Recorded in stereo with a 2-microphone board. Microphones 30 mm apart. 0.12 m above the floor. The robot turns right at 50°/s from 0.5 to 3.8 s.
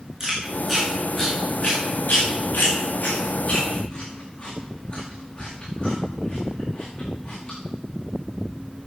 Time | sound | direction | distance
0.2 | chewing | 20° right (ahead or behind) | 6 m